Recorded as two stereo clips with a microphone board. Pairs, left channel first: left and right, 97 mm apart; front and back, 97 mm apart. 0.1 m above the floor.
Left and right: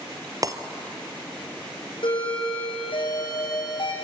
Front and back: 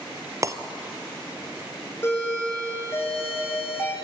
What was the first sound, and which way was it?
Breaking glass, 135° right.